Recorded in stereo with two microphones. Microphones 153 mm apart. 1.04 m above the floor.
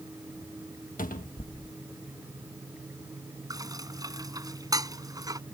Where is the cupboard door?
60° left (ahead or behind).